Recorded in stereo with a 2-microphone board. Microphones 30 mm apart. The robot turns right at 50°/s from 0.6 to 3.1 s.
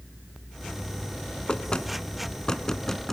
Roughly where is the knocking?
Left.